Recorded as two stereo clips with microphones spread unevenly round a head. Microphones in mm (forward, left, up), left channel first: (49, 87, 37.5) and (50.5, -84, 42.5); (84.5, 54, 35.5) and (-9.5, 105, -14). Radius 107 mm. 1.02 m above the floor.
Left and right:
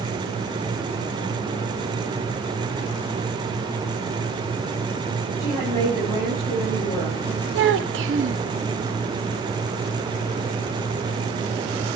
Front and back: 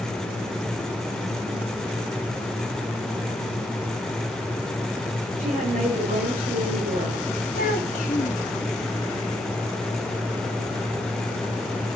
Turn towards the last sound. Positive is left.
turn(degrees=-85)